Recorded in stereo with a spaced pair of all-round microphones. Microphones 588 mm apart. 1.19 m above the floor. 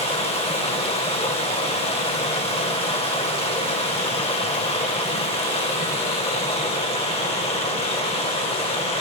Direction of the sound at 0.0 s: 10° left (ahead or behind).